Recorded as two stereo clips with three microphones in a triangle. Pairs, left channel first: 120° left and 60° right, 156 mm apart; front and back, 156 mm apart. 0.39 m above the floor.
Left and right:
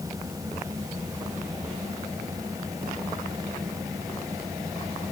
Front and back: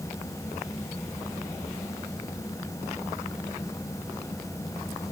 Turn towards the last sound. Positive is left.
No sound to turn to.